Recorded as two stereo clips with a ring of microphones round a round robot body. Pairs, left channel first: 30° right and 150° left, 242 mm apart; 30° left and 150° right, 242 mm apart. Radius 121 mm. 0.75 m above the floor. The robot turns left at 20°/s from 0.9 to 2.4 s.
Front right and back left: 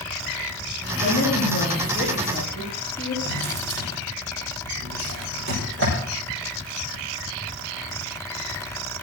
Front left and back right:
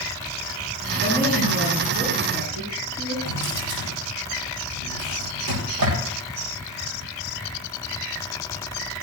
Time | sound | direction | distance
1.0 | a woman speaking | 85° right | 9 m
3.2 | a drawer | 170° right | 9.5 m